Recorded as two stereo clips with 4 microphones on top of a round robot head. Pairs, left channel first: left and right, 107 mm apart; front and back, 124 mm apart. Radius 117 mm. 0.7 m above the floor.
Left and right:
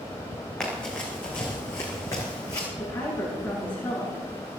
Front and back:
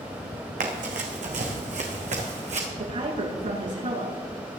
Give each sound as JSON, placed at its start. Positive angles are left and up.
{"t": 0.6, "sound": "running footsteps", "azimuth_deg": 175, "distance_m": 3.0}
{"t": 2.8, "sound": "a woman speaking", "azimuth_deg": 170, "distance_m": 8.0}